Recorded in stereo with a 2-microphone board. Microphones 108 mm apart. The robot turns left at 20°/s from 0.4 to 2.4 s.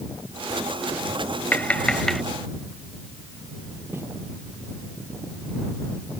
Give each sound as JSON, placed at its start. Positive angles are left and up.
{"t": 1.5, "sound": "tapping", "side_deg": 15}
{"t": 3.9, "sound": "footsteps", "side_deg": -20}